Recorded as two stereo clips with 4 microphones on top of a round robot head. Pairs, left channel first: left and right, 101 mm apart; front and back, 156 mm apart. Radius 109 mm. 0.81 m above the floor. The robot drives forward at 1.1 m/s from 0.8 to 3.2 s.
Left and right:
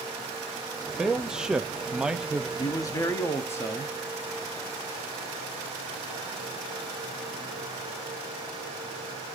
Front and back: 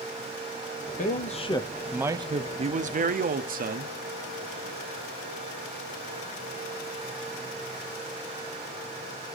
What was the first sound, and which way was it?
A man speaking, 5° right.